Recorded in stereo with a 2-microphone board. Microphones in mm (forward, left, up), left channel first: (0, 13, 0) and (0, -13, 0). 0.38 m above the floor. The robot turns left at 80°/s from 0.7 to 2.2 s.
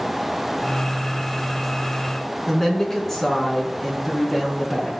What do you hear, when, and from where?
2.5 s a woman speaking: 10° left (ahead or behind), 4.5 m